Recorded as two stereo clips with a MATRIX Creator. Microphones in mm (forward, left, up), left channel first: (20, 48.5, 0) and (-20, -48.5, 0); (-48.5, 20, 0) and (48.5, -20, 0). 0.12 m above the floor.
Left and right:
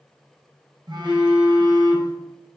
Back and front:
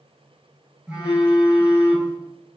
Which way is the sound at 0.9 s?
100° right.